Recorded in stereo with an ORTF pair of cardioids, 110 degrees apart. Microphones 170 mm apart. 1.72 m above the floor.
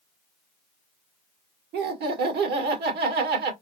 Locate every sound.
1.7 s laughter: 70° right, 1.6 m